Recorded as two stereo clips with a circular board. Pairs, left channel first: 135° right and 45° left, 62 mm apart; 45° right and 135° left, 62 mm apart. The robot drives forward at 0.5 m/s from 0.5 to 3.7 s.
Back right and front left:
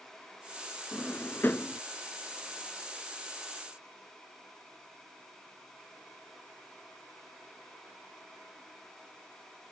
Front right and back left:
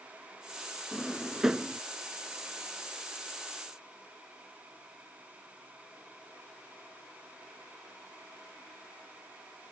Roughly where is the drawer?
Behind right.